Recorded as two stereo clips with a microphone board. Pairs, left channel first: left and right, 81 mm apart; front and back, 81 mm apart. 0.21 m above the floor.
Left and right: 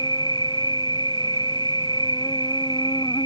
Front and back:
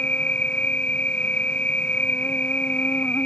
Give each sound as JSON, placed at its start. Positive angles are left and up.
{"t": 0.0, "sound": "an insect", "azimuth_deg": 70}